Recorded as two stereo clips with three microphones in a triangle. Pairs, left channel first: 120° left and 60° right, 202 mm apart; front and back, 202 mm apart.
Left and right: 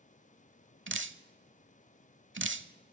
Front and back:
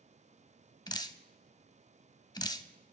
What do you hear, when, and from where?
0.9 s dripping: 65° right, 0.7 m